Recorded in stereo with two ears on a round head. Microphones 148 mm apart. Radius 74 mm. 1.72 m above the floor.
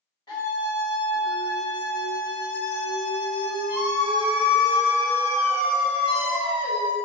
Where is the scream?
30° left (ahead or behind), 1.3 m.